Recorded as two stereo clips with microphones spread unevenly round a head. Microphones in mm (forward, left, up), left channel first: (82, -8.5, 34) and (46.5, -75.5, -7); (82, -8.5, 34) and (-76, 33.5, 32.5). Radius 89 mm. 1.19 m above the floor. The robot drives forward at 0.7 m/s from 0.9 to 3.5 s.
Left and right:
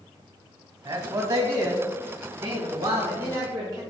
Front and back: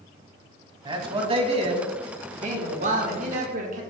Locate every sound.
0.8 s a man speaking: 135° right, 2 m; by 3.8 s 155° right, 3.5 m